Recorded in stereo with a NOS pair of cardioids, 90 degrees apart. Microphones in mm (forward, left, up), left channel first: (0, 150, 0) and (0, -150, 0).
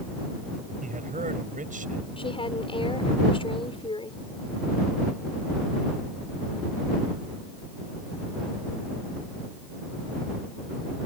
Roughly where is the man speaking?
Ahead right.